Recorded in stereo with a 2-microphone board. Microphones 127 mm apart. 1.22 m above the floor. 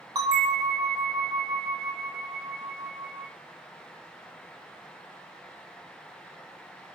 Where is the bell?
30° right (ahead or behind), 0.8 m.